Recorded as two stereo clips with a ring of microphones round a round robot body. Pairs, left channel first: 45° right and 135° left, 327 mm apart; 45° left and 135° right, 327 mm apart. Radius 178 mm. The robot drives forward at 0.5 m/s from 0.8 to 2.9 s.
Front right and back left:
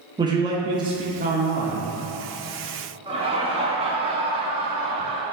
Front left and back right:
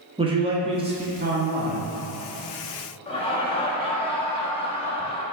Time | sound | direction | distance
0.2 | a man speaking | 175° right | 0.7 m
3.1 | laughter | 90° left | 1.0 m